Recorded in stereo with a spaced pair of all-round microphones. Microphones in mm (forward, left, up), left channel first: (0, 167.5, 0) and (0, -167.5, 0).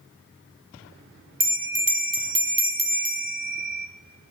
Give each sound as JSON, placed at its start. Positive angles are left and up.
{"t": 1.4, "sound": "a bell", "side_deg": -80, "distance_m": 0.8}